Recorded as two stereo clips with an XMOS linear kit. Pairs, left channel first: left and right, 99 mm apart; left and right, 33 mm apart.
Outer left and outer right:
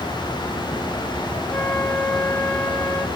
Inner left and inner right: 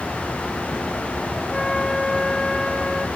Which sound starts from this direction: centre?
A flute, at 1.5 s.